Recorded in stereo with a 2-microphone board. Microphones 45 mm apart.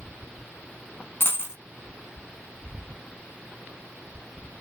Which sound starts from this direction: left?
A dropped coin, at 1.2 s.